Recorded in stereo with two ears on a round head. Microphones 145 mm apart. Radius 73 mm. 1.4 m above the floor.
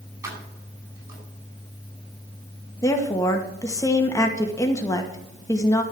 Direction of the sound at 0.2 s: 20° right (ahead or behind).